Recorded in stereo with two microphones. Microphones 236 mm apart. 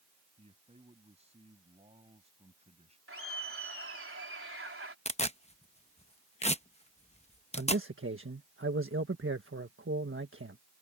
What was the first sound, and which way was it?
A man speaking, 25° right (ahead or behind).